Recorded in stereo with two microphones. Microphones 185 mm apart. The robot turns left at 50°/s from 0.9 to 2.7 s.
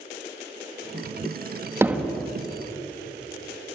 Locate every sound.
1.8 s hammering: 15° right (ahead or behind), 1.8 m; by 2.3 s 10° left (ahead or behind), 1.8 m